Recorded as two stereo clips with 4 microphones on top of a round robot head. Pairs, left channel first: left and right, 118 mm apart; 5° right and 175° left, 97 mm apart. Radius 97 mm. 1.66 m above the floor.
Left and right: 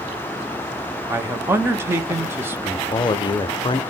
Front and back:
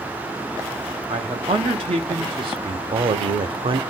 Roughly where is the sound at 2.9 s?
Behind left.